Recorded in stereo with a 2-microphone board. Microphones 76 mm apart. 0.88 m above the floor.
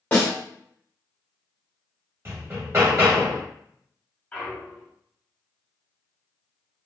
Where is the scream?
No scream in this recording.